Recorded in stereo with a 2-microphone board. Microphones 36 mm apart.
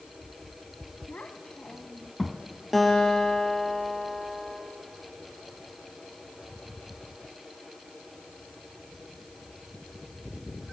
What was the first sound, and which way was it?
A child speaking, 55° left (ahead or behind).